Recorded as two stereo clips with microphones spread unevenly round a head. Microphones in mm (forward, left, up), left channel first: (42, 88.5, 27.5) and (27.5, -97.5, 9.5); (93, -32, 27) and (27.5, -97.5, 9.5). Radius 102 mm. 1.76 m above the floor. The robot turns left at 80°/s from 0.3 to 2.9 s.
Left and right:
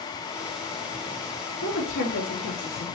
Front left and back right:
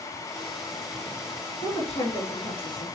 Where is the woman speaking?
100° left, 2.5 m; by 2.9 s straight ahead, 2.5 m.